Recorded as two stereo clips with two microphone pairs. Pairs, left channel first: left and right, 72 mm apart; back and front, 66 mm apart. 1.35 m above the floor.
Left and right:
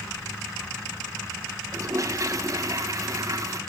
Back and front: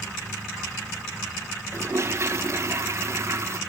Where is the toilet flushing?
50° right, 1.6 m.